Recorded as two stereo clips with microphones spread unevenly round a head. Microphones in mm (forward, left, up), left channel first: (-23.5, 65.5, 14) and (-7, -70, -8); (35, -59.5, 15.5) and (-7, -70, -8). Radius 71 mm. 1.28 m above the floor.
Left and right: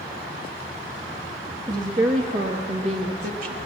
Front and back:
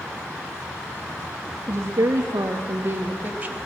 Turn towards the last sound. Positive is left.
turn(degrees=-105)